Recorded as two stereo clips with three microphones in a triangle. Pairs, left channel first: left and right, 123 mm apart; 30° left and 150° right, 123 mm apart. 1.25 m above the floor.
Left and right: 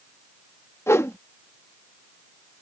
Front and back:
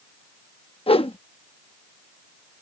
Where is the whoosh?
30° left.